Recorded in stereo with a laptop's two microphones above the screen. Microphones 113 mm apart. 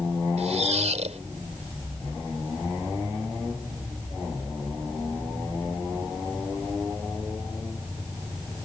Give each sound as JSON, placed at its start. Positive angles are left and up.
{"t": 0.4, "sound": "a squeak", "side_deg": -85}